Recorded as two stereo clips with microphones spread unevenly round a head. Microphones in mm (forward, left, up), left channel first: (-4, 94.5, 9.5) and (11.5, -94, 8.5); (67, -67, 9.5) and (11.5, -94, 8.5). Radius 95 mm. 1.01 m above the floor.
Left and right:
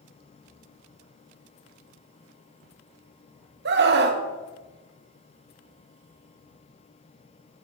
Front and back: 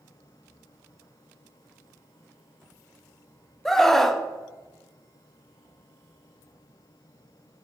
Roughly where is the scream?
Ahead right.